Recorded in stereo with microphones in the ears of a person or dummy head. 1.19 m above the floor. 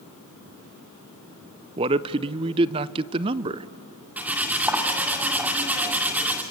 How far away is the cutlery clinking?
About 2.0 m.